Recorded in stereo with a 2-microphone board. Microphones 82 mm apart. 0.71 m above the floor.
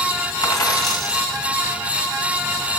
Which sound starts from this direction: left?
A dropped coin, at 0.4 s.